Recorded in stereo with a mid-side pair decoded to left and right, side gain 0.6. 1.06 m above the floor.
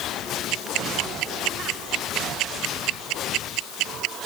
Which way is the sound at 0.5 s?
70° right.